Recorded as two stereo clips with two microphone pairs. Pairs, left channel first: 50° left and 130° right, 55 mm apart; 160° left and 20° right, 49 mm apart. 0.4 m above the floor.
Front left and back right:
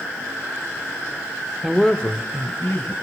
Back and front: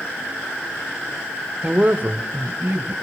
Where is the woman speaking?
60° right, 0.8 m; by 2.9 s 20° left, 1.8 m.